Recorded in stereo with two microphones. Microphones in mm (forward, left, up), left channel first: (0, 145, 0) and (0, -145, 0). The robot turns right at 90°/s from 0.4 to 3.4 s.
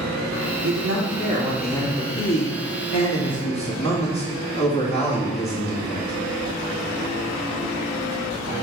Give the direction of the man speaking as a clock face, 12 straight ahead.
3 o'clock.